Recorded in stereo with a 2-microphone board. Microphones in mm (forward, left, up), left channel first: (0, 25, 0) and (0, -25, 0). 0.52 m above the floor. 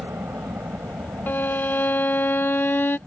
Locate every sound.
0.0 s a helicopter: 55° right (ahead or behind); by 3.1 s 65° right (ahead or behind)
1.3 s a violin: 45° left (ahead or behind)